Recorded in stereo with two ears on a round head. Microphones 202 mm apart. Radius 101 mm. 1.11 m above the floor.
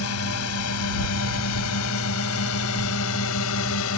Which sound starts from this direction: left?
A drone, at 0.0 s.